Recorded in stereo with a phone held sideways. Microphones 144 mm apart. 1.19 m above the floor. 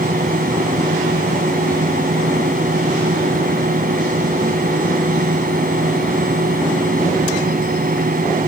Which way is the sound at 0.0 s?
75° right (ahead or behind).